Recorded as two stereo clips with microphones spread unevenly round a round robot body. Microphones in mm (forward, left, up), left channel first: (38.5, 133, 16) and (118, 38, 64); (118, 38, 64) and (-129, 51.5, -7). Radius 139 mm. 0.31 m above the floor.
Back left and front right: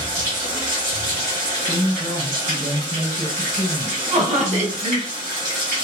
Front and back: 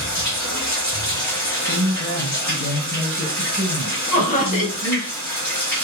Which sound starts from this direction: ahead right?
Laughter, at 4.1 s.